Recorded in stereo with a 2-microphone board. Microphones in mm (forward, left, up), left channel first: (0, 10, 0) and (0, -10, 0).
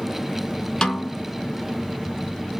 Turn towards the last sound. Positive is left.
turn(degrees=35)  # may be behind; listen again after turning